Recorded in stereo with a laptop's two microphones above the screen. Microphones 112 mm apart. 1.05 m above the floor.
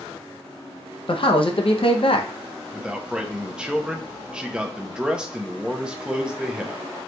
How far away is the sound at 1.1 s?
About 0.6 m.